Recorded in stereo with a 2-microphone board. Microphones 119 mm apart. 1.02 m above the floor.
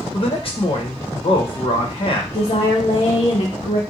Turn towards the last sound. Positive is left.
turn(degrees=70)  # may be behind; listen again after turning